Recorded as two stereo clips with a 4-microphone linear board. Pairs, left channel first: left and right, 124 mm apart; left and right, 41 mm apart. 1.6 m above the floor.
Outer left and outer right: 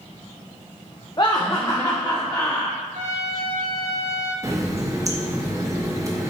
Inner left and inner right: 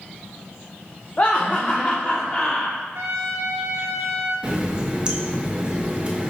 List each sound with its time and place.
1.2 s laughter: 35° left (ahead or behind), 0.7 m; by 2.8 s 15° left (ahead or behind), 1.9 m
2.9 s a trumpet: 75° right (ahead or behind), 2 m
4.4 s a running tap: 25° right (ahead or behind), 1.1 m